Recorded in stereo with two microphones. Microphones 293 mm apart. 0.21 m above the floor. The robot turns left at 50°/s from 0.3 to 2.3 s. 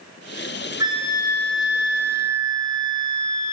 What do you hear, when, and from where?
0.8 s a flute: 15° right, 2 m; by 3.5 s 90° right, 2 m